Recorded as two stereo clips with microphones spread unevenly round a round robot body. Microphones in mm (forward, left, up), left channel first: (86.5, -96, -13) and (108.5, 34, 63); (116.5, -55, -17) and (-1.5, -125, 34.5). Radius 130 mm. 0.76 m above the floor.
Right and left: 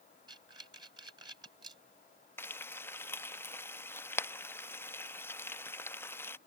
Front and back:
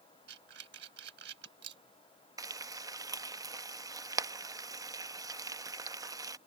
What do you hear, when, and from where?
0.3 s breathing: 160° left
2.4 s frying: 70° right